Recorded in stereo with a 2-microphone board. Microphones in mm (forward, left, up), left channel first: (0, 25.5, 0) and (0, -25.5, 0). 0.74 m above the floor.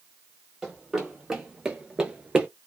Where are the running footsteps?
5° right (ahead or behind), 1.3 m; by 2.5 s 15° right (ahead or behind), 0.8 m.